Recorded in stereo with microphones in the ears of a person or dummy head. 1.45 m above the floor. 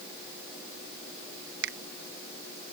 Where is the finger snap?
60° right (ahead or behind).